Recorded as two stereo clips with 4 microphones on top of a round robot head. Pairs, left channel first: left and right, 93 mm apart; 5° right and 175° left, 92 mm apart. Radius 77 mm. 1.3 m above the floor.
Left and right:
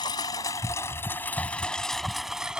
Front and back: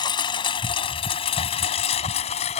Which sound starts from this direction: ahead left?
A lawn mower, at 0.0 s.